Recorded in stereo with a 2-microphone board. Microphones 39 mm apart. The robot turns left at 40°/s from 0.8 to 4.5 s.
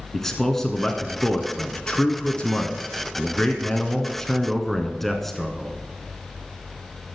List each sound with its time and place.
0.1 s a man speaking: 5° left (ahead or behind), 1.2 m